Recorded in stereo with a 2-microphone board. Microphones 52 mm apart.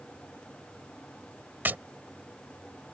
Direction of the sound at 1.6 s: 40° right (ahead or behind).